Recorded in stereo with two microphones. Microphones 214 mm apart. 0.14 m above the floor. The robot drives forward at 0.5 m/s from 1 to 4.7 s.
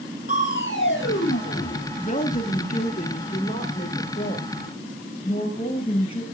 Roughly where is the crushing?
Left.